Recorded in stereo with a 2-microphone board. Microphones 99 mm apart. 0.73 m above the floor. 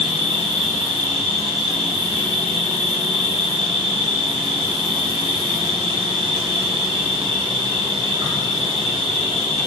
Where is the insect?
75° right (ahead or behind), 2.0 m.